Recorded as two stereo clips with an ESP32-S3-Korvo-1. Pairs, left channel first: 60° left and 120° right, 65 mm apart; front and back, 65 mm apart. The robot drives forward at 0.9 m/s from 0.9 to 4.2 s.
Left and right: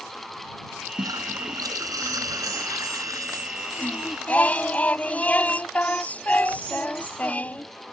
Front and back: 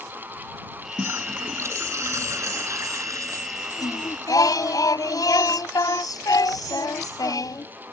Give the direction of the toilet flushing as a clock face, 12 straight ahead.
4 o'clock.